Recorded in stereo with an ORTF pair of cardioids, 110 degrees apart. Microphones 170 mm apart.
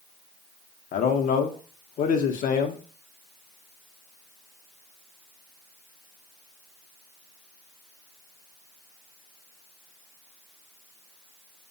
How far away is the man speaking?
About 0.6 m.